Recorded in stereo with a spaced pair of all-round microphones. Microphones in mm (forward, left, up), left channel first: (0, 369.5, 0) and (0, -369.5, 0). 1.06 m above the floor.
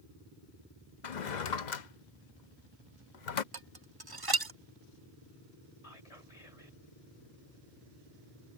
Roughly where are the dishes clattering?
Right.